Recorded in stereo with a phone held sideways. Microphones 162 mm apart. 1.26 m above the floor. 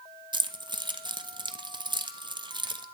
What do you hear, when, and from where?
0.3 s keys jangling: 30° right (ahead or behind), 1.0 m